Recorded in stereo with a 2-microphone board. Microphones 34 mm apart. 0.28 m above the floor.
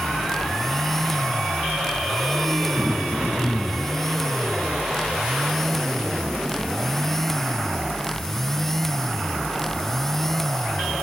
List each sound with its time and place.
2.8 s throat clearing: 30° right (ahead or behind), 5.5 m